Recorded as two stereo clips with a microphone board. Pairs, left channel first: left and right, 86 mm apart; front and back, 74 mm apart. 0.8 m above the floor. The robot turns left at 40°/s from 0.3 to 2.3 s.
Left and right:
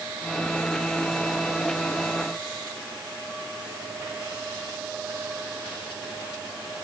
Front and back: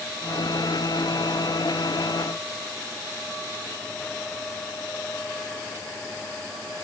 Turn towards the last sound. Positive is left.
No sound to turn to.